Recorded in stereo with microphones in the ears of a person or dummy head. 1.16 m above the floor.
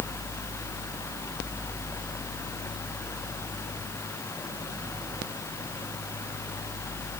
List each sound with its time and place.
Only background noise.